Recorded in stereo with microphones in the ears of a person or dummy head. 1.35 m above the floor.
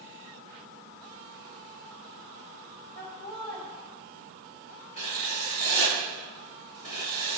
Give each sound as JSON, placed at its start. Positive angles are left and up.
{"t": 3.0, "sound": "laughter", "side_deg": 40, "distance_m": 1.9}
{"t": 5.0, "sound": "writing", "side_deg": 30, "distance_m": 1.1}